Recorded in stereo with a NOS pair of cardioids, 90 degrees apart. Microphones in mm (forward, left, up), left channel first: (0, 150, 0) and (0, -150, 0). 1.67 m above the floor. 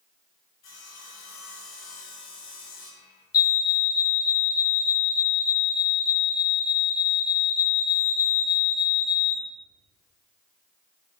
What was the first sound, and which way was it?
Sawing, 60° left.